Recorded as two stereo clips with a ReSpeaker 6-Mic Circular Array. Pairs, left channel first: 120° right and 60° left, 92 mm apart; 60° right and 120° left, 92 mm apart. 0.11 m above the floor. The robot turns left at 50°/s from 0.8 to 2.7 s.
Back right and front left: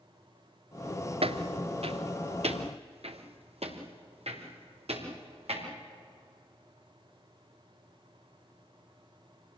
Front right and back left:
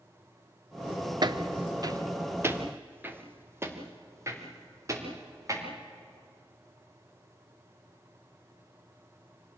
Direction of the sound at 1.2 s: 75° left.